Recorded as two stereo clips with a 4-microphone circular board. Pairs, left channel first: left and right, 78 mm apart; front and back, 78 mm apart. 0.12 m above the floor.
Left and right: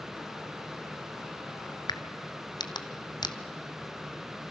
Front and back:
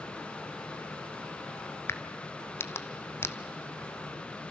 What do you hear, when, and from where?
1.9 s a crack: 60° left, 0.9 m